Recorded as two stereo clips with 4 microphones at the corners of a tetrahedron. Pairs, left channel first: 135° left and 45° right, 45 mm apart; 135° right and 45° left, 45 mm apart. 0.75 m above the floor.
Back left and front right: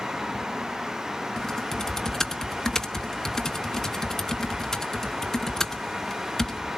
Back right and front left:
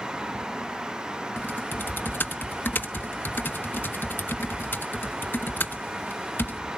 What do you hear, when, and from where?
1.4 s typing on a keyboard: 150° right, 1.0 m